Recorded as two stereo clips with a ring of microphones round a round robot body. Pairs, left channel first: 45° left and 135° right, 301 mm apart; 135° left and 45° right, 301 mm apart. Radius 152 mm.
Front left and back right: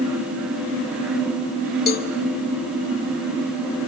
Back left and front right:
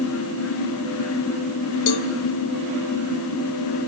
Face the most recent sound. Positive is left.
turn(degrees=105)